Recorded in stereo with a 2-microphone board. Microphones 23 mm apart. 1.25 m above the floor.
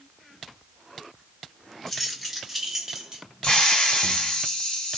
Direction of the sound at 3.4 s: 45° left (ahead or behind).